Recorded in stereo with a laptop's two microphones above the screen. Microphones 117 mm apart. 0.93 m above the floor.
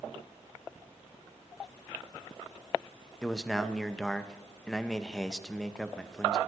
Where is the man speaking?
5° left (ahead or behind), 0.7 m.